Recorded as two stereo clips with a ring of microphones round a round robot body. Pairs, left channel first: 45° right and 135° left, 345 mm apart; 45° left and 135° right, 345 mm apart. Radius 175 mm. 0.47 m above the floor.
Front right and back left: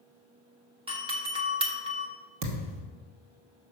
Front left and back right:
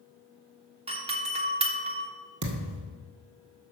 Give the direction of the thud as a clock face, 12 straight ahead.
6 o'clock.